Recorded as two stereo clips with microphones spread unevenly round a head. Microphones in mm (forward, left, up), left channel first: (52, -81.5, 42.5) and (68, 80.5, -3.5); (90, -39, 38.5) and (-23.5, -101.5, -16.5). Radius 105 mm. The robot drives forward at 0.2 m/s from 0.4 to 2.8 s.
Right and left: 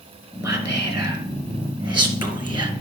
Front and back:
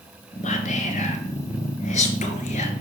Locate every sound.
0.4 s whispering: 15° left, 1.9 m; by 2.7 s 20° left, 1.4 m